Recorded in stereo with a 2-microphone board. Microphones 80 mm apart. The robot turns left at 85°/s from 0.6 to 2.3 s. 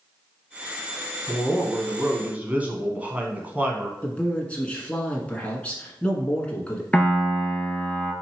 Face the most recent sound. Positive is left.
turn(degrees=15)  # may be behind; listen again after turning